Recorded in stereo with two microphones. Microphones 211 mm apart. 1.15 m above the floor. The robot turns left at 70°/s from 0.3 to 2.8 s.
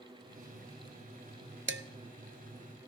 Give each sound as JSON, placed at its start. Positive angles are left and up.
{"t": 1.7, "sound": "dishes clattering", "side_deg": -70, "distance_m": 0.7}